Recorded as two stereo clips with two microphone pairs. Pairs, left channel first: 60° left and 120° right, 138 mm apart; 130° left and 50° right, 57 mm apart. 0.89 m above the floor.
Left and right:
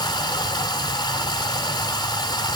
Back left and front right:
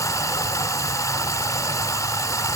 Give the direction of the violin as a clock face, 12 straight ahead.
I don't hear a violin.